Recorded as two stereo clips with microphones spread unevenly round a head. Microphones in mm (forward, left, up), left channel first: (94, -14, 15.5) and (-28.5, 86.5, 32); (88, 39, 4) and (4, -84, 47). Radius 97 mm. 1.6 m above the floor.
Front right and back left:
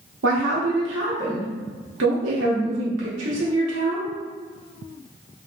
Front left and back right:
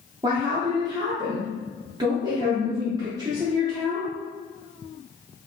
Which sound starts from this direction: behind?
A woman speaking, at 0.2 s.